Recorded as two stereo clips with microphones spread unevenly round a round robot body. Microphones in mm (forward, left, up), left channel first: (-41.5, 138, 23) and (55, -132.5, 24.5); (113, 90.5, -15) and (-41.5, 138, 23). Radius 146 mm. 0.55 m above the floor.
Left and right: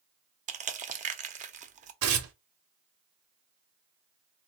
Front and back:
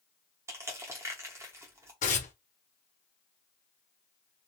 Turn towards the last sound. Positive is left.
turn(degrees=-40)